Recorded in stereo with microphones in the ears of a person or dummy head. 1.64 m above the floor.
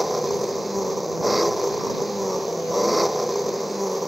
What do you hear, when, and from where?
0.0 s an engine running: centre (ahead or behind)